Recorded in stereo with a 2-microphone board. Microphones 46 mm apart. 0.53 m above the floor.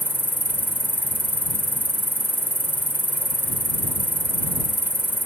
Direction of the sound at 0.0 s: 45° right (ahead or behind).